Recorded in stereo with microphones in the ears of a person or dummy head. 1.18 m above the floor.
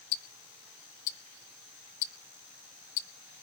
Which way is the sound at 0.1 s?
65° left (ahead or behind).